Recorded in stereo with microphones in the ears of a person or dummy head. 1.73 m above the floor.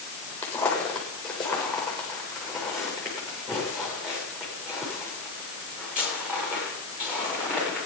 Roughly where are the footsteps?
Centre.